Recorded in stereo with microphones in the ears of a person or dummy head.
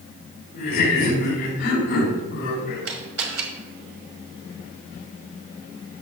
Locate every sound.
0.5 s laughter: 45° left (ahead or behind), 3.5 m; by 2.9 s 50° left (ahead or behind), 5 m
2.9 s a camera shutter: 75° right (ahead or behind), 1.6 m